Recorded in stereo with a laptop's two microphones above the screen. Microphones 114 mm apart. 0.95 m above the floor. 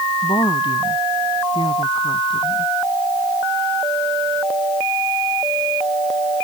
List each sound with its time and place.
0.2 s a woman speaking: 45° left (ahead or behind)